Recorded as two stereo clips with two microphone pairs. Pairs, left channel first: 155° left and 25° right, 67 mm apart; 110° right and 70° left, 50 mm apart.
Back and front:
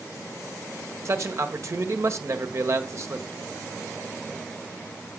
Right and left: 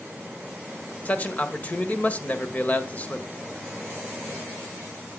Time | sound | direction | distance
1.1 | a man speaking | 60° right | 1.5 m